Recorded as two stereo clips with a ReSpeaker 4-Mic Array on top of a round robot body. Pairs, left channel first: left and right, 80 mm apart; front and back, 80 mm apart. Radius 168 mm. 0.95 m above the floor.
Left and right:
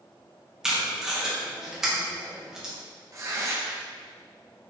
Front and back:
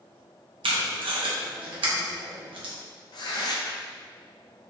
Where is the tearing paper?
35° right, 0.5 m.